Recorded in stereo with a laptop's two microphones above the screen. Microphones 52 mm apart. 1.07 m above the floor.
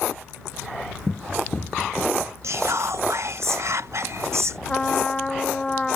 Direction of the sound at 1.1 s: 10° left (ahead or behind).